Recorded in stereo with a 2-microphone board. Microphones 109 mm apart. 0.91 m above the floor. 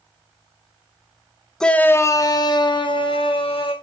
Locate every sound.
1.6 s a shout: 5° left (ahead or behind), 0.6 m; by 3.7 s 55° left (ahead or behind), 1.6 m